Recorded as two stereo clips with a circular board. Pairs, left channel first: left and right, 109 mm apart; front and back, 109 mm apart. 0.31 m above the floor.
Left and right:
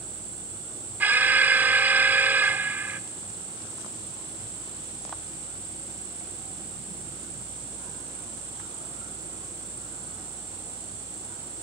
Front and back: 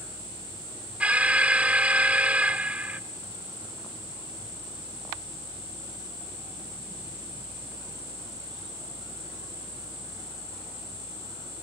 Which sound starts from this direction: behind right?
An alarm, at 1.0 s.